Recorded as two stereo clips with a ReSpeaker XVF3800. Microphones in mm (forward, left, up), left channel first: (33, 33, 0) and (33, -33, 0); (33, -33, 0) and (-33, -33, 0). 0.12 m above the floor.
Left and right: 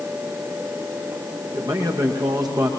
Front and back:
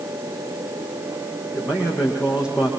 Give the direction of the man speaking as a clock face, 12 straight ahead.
3 o'clock.